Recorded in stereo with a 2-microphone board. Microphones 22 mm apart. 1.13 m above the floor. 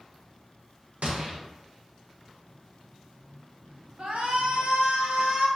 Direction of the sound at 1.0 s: 70° right (ahead or behind).